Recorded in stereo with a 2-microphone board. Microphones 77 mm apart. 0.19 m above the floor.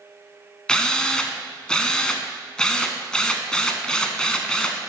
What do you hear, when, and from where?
0.7 s a drill: 10° left (ahead or behind), 0.7 m